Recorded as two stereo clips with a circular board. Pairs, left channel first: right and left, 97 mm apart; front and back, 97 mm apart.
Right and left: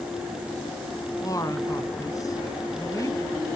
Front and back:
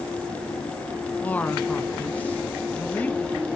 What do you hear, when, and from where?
1.2 s a man speaking: 65° right, 1.3 m